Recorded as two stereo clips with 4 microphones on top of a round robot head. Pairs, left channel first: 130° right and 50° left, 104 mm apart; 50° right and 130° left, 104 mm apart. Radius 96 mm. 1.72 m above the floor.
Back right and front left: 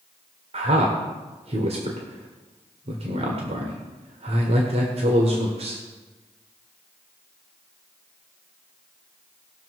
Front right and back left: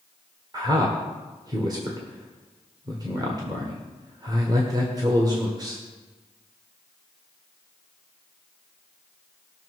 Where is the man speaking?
75° left, 1.5 m.